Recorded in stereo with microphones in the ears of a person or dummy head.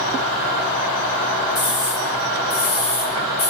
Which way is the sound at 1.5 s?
50° left (ahead or behind).